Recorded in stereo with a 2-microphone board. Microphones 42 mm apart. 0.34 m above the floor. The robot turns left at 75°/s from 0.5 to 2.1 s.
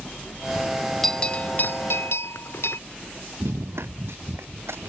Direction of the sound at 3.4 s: 75° right (ahead or behind).